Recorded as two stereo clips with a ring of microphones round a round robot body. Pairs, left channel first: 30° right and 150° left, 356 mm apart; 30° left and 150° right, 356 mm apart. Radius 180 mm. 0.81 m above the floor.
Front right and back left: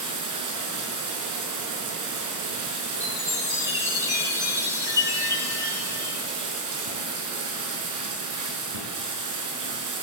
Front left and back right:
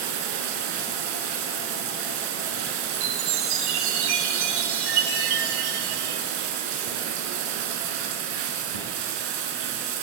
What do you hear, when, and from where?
0.0 s running water: 170° right, 5 m
2.9 s a chime: 130° right, 8 m